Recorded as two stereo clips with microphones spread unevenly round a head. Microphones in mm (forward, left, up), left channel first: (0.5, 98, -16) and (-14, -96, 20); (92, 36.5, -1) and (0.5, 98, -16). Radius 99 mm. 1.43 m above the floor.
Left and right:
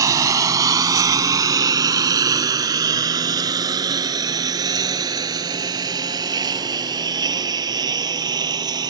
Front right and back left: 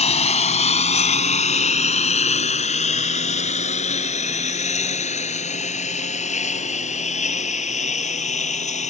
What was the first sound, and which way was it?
A lawn mower, 25° right.